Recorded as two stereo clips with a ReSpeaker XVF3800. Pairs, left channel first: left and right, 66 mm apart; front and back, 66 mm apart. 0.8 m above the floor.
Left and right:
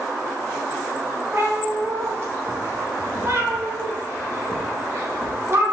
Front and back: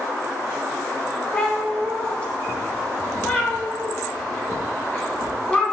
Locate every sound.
1.3 s a cat meowing: 65° right, 0.9 m